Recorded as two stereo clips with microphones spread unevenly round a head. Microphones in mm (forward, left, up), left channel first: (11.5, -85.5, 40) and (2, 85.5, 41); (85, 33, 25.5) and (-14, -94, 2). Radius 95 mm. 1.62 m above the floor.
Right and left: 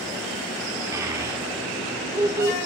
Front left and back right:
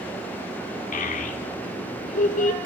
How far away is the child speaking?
About 3 m.